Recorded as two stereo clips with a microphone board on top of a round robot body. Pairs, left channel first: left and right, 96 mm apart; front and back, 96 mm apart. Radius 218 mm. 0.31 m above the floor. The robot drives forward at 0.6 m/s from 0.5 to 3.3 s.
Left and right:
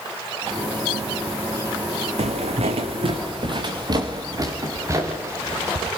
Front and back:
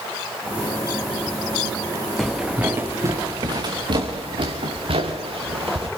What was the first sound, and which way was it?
Footsteps, 90° right.